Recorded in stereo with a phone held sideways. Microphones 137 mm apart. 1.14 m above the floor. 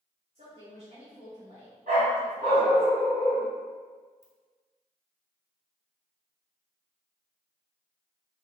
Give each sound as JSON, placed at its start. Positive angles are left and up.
{"t": 0.3, "sound": "a woman speaking", "side_deg": -50, "distance_m": 1.9}
{"t": 1.9, "sound": "a dog barking", "side_deg": -65, "distance_m": 2.0}
{"t": 4.2, "sound": "a ringtone", "side_deg": -60, "distance_m": 1.3}